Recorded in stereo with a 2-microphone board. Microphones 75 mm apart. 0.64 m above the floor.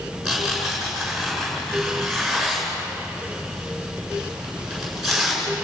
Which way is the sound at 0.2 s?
Centre (ahead or behind).